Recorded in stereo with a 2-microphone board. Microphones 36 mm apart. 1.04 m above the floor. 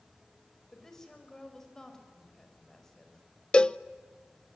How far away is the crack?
I don't hear a crack.